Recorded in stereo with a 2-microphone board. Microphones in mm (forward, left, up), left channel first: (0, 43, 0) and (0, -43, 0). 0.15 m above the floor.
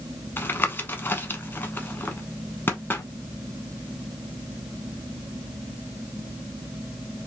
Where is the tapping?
25° left (ahead or behind), 0.6 m.